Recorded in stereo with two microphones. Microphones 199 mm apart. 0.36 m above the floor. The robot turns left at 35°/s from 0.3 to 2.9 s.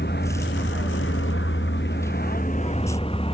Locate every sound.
0.0 s a vehicle: 120° left; by 3.4 s 30° left